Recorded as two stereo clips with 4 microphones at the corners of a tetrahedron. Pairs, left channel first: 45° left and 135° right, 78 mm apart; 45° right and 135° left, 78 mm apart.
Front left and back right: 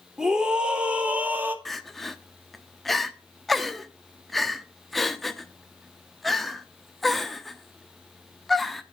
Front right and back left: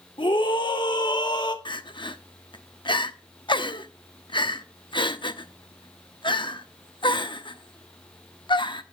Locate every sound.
0.2 s a scream: 55° right, 2.5 m; by 1.6 s 70° right, 2 m
1.6 s crying: 45° right, 0.9 m